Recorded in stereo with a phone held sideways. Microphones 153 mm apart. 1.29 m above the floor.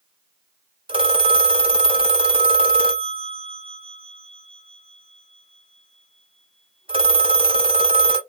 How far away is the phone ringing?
About 0.7 m.